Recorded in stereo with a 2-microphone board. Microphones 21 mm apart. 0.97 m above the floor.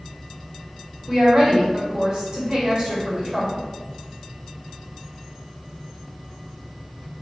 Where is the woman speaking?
30° right (ahead or behind), 1.1 m.